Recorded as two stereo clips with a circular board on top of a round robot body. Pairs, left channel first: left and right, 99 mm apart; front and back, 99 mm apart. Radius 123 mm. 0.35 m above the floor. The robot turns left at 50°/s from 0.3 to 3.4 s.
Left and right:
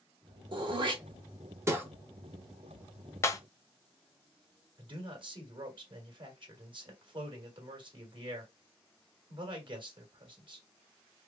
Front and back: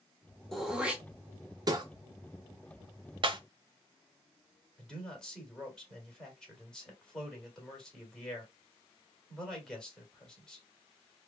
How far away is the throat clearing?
About 1.2 m.